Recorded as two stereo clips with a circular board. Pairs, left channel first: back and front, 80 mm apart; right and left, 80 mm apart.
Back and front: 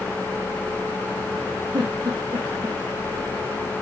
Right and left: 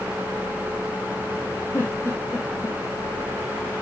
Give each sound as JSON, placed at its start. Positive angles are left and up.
{"t": 1.7, "sound": "a giggle", "azimuth_deg": -30, "distance_m": 3.0}